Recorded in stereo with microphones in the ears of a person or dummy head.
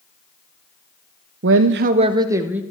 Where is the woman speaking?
55° right (ahead or behind), 0.6 m; by 2.6 s 10° right (ahead or behind), 1.4 m.